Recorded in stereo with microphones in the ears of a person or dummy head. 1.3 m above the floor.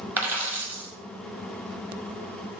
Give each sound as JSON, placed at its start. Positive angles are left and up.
{"t": 0.2, "sound": "a dropped coin", "side_deg": -10, "distance_m": 1.1}